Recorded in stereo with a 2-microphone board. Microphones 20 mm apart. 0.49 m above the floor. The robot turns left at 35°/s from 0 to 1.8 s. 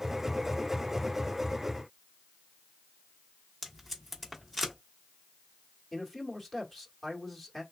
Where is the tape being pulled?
5° left (ahead or behind), 1.2 m.